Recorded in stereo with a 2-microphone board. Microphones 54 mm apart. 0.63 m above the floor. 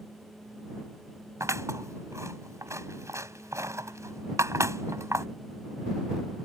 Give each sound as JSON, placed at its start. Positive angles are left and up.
{"t": 1.4, "sound": "scissors", "side_deg": -75}